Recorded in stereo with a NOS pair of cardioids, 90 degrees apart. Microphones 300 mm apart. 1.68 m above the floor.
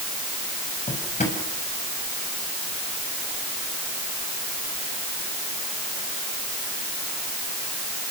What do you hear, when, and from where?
0.9 s a drawer: 25° left, 6.5 m